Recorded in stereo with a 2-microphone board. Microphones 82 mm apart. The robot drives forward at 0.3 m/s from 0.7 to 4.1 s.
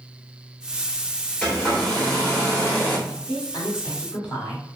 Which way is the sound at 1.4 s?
15° left (ahead or behind).